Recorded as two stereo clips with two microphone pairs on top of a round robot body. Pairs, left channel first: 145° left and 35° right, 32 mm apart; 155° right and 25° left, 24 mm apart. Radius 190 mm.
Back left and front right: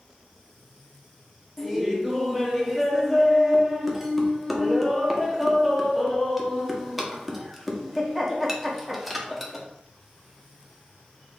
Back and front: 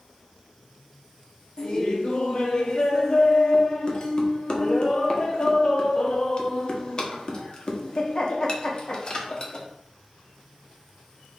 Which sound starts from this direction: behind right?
Laughter, at 1.6 s.